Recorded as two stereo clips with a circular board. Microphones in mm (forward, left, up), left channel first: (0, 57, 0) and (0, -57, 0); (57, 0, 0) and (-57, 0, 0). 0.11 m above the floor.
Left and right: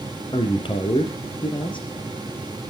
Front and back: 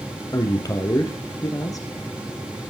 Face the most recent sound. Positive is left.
turn(degrees=55)